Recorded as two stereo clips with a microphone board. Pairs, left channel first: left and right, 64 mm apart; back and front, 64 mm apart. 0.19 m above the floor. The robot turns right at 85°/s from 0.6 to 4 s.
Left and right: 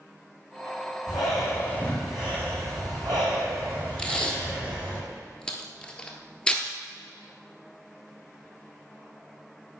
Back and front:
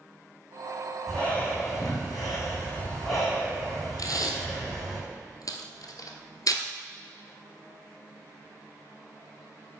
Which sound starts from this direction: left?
Breathing, at 1.1 s.